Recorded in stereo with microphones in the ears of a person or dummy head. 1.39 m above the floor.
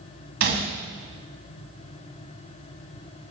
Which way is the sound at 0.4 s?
50° right (ahead or behind).